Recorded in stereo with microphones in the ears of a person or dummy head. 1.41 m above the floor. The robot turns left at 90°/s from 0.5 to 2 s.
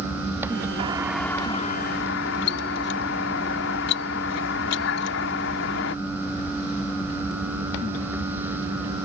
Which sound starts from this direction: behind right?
A doorbell, at 0.8 s.